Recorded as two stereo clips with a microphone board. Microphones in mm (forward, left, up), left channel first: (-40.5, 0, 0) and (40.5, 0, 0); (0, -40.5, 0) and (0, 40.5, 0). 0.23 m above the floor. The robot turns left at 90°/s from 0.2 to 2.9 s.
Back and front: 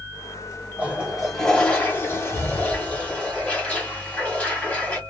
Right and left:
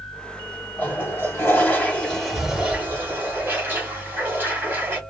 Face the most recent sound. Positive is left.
turn(degrees=120)